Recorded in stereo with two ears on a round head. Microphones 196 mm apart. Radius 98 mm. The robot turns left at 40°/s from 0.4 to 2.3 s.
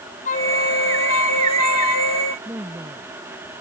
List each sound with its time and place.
0.2 s a flute: 145° left; by 2.4 s 65° left
2.5 s a woman speaking: 10° right (ahead or behind)